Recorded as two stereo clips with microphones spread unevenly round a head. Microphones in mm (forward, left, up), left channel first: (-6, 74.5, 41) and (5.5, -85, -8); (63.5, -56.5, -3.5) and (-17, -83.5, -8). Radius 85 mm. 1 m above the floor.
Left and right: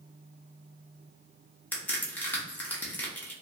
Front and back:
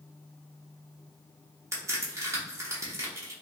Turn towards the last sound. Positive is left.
turn(degrees=-170)